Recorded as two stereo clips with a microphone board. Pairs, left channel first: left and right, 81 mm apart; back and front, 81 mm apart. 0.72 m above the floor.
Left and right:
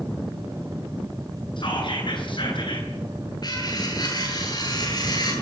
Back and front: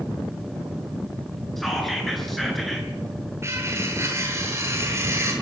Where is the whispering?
90° left, 10 m.